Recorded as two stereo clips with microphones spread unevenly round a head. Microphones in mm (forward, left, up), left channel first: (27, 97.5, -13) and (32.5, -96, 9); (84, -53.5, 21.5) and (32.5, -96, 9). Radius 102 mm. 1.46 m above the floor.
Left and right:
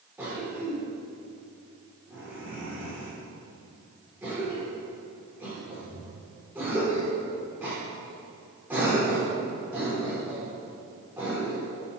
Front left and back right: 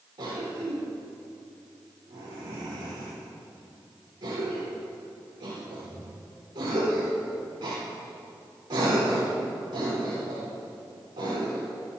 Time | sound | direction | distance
0.2 | a cough | 170° right | 5 m